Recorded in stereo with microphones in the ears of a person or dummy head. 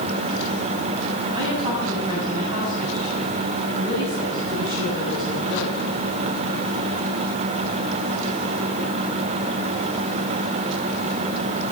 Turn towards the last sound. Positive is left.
turn(degrees=-25)  # may be behind; listen again after turning